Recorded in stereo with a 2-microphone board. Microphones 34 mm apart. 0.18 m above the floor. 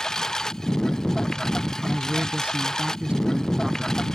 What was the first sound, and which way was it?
A lawn mower, 15° left (ahead or behind).